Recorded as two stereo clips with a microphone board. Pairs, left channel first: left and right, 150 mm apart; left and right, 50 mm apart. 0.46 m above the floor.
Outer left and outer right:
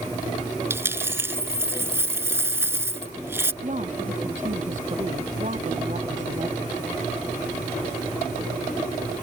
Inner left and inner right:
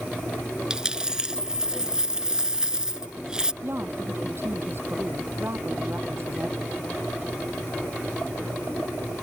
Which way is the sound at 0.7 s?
15° right (ahead or behind).